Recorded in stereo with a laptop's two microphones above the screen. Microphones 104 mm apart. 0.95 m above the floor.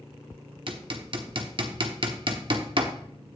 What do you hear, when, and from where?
0.7 s hammering: 50° right (ahead or behind), 1.1 m